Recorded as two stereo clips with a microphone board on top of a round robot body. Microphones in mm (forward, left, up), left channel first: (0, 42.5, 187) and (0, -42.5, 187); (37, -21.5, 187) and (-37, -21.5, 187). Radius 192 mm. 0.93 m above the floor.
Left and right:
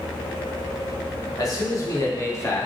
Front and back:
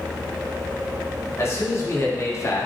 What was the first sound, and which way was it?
A man speaking, 45° left.